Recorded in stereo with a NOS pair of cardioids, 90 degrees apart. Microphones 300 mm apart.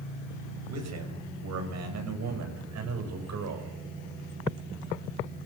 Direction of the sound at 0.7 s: 65° right.